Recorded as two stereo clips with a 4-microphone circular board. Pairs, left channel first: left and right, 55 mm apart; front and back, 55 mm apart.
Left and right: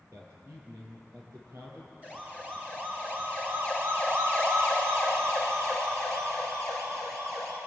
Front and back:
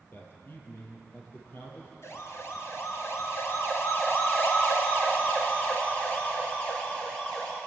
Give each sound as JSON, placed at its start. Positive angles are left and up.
{"t": 0.1, "sound": "a man speaking", "azimuth_deg": -55, "distance_m": 8.0}
{"t": 2.0, "sound": "a siren", "azimuth_deg": -25, "distance_m": 4.5}